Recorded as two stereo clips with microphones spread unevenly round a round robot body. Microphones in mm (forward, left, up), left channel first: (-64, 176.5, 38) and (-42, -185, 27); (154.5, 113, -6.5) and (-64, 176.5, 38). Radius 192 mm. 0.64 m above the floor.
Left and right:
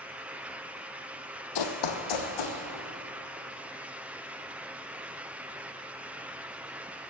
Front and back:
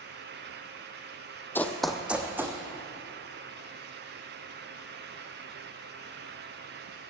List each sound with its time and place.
1.6 s running footsteps: 70° left, 1.2 m; by 2.6 s 85° left, 2.5 m